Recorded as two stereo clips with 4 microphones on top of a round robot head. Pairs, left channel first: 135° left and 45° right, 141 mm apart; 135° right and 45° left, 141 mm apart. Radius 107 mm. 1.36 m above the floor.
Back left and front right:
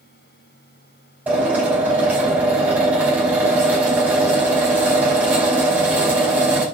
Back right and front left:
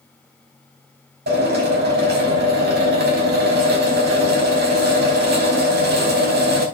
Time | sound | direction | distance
1.3 | a drill | 35° left | 4.5 m